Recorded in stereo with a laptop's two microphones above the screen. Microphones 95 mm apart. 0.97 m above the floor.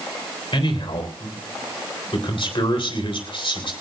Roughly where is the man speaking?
Left.